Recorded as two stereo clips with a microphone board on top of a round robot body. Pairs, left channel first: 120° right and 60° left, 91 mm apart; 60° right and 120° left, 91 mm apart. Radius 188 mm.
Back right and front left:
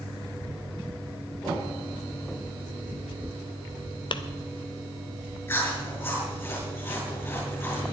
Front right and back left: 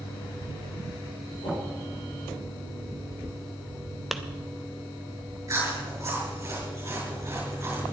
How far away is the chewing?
About 7 m.